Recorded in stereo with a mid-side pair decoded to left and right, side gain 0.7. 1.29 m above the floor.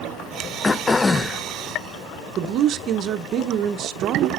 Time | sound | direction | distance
0.6 | throat clearing | 20° left | 0.5 m
2.4 | a woman speaking | 45° right | 0.7 m